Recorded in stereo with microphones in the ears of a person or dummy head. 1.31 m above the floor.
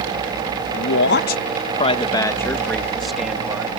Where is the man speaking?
65° left (ahead or behind); by 3.7 s 10° right (ahead or behind).